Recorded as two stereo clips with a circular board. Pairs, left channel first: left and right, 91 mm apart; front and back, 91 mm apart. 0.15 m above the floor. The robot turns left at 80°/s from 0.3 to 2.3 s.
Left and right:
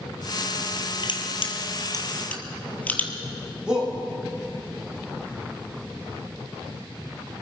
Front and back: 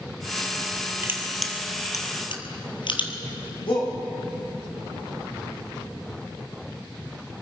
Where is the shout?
10° right, 6.5 m.